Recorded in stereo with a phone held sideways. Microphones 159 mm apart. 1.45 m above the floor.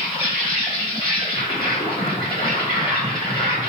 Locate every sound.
0.0 s an insect: 35° left (ahead or behind), 1.4 m